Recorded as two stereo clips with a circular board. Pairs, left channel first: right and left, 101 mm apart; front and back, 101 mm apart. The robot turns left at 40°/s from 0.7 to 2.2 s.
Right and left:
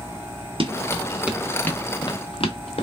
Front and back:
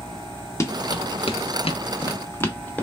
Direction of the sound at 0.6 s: 60° left.